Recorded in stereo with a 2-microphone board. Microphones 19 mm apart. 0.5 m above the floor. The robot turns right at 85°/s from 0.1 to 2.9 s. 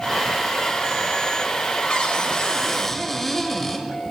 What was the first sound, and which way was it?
A cupboard door, 80° left.